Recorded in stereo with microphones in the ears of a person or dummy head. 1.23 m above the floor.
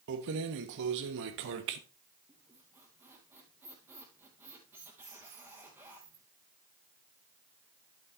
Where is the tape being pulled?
No tape being pulled in this recording.